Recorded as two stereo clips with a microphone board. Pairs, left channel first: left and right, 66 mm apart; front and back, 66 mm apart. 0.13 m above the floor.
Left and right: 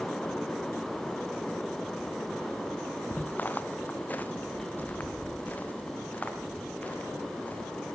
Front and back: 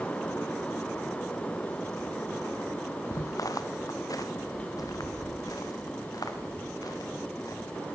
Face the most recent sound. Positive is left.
turn(degrees=25)